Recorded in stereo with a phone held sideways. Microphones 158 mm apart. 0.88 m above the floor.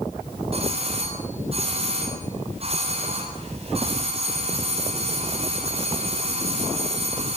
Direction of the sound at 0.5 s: 40° right (ahead or behind).